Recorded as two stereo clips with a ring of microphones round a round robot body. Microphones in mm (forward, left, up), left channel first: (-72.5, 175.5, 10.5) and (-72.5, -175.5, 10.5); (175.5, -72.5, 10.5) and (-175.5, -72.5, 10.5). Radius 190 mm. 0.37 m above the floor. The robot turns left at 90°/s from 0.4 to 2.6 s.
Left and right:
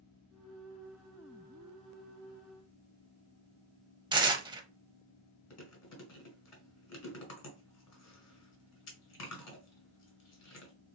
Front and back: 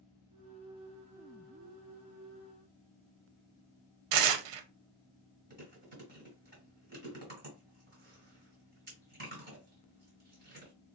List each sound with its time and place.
4.1 s tearing paper: 170° right, 0.7 m
5.5 s chewing: 120° left, 1.9 m